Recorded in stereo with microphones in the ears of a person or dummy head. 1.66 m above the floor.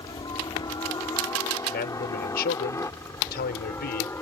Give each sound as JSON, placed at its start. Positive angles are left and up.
{"t": 0.0, "sound": "a helicopter", "side_deg": 20}
{"t": 1.7, "sound": "a man speaking", "side_deg": 50}